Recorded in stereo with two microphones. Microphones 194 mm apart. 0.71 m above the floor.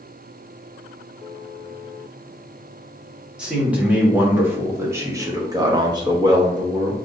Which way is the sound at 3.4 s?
5° right (ahead or behind).